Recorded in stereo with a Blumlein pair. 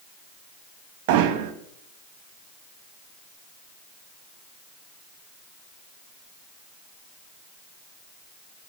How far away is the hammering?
About 2 m.